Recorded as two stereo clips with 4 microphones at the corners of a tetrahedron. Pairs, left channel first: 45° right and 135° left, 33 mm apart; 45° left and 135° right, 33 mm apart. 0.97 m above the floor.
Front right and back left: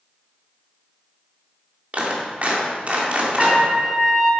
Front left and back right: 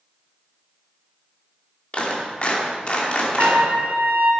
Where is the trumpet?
145° right, 1.7 m.